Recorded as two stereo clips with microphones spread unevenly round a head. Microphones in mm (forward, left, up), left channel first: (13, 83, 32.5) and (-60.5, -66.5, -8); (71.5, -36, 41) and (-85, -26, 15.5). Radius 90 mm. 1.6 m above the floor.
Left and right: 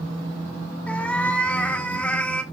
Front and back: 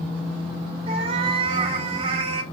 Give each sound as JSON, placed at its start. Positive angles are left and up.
{"t": 0.9, "sound": "a cat meowing", "azimuth_deg": 120, "distance_m": 1.3}